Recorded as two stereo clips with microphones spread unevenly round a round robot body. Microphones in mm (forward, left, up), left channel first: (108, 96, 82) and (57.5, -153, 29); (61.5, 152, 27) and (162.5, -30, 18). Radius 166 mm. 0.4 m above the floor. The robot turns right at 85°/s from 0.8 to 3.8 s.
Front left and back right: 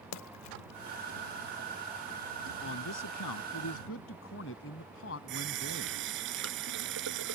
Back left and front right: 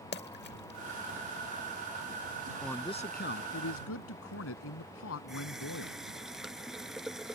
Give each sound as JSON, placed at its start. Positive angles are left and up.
{"t": 0.1, "sound": "a splash", "azimuth_deg": 90}
{"t": 2.6, "sound": "a man speaking", "azimuth_deg": 30}
{"t": 5.3, "sound": "a running tap", "azimuth_deg": -150}